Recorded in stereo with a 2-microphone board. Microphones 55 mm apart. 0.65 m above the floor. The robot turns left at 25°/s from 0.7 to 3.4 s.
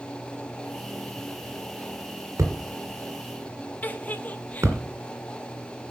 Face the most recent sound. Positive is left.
turn(degrees=30)  # may be behind; listen again after turning